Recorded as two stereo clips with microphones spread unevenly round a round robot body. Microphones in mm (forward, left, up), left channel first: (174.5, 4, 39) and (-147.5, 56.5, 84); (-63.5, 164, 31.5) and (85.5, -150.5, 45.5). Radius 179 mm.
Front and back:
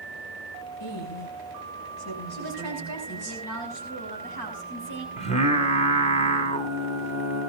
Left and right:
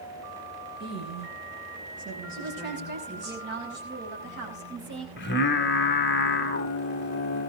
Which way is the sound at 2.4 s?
5° right.